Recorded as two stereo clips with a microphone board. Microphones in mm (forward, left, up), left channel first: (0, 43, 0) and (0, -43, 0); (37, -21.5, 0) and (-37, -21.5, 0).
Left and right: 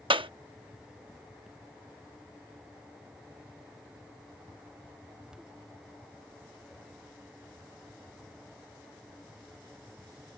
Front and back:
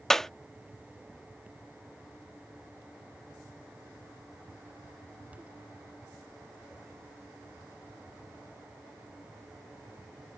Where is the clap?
85° right.